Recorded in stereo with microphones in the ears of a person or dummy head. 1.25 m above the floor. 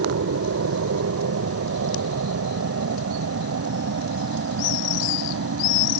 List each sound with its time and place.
0.0 s an aircraft: 65° right (ahead or behind)